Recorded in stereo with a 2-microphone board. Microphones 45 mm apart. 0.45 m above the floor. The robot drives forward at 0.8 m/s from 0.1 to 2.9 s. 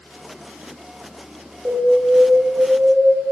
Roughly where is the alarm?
Right.